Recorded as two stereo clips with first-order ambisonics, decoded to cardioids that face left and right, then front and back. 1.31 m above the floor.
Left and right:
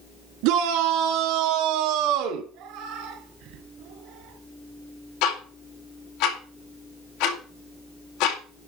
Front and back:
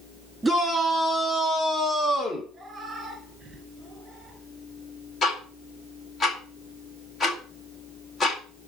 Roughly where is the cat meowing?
Right.